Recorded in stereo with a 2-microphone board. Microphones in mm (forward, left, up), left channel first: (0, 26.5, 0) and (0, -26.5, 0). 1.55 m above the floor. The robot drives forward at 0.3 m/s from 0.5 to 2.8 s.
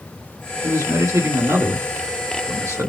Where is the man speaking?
75° right (ahead or behind), 2 m; by 2.9 s 60° right (ahead or behind), 2.5 m.